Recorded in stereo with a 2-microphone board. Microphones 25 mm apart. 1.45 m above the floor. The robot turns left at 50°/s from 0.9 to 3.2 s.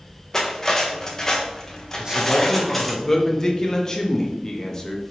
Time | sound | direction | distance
0.3 | cutlery clinking | 20° left (ahead or behind) | 0.6 m
1.9 | a man speaking | 140° right | 0.7 m